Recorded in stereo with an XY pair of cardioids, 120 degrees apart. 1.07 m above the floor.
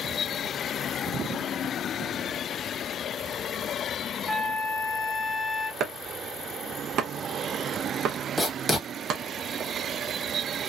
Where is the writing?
10° right, 1.2 m.